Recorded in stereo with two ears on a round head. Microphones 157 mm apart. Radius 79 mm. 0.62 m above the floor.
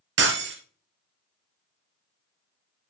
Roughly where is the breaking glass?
Right.